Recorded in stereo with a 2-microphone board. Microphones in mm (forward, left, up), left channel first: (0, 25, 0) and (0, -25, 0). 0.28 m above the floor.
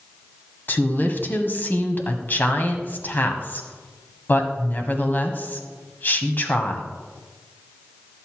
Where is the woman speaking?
40° left (ahead or behind), 1.7 m.